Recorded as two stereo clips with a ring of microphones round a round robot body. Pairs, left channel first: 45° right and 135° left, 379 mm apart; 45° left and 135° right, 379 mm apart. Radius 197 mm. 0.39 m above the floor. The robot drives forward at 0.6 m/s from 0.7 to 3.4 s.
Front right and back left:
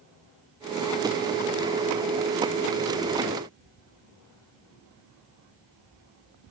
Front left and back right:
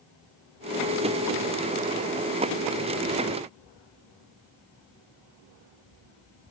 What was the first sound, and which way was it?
Only background noise.